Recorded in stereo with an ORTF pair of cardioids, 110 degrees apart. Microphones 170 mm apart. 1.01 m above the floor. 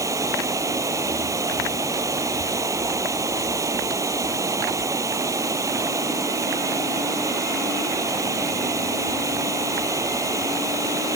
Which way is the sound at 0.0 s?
20° right.